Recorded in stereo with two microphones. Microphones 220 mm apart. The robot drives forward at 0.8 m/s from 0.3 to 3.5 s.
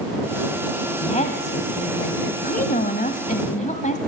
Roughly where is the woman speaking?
Left.